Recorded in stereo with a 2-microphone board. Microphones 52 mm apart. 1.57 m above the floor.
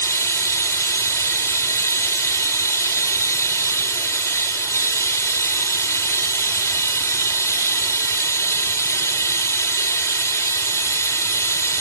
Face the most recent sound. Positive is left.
turn(degrees=60)  # may be behind; listen again after turning